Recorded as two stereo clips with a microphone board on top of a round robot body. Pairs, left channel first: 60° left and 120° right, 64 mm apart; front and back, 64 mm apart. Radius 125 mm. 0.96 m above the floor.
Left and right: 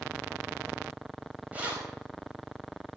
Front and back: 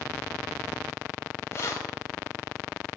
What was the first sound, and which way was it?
Keys jangling, 50° right.